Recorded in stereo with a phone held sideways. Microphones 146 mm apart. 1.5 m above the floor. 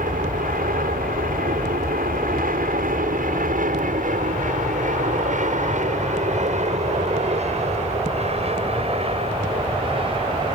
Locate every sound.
0.0 s an aircraft: 75° right (ahead or behind); by 10.6 s 35° right (ahead or behind)